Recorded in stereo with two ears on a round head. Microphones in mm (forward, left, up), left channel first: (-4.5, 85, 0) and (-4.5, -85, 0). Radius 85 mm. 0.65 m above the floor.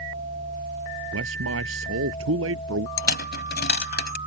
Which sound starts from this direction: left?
A dropped coin, at 3.0 s.